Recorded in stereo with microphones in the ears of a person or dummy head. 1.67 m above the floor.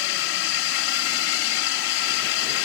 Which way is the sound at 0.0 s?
75° left (ahead or behind).